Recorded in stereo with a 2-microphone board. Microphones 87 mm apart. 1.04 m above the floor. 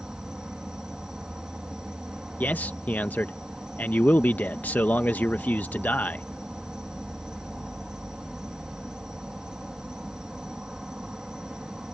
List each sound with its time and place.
0.0 s an insect: 10° right (ahead or behind)
2.4 s a man speaking: 20° left (ahead or behind)